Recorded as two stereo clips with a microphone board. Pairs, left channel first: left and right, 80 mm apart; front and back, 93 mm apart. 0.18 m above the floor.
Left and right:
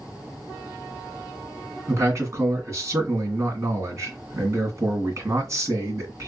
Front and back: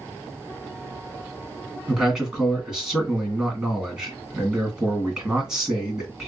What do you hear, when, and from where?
1.9 s a man speaking: 95° right, 1.8 m